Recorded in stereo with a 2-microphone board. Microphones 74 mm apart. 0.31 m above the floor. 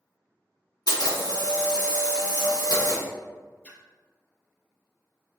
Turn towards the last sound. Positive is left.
turn(degrees=20)  # may be behind; listen again after turning